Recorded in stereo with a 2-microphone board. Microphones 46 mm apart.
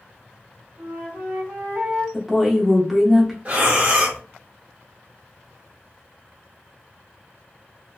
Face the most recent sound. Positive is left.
turn(degrees=-35)  # may be behind; listen again after turning